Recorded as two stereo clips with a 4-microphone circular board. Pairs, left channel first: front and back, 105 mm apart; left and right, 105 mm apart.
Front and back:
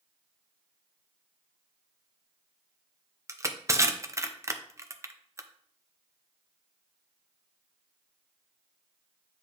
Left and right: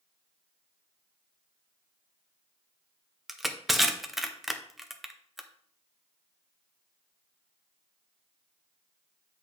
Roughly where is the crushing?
Behind.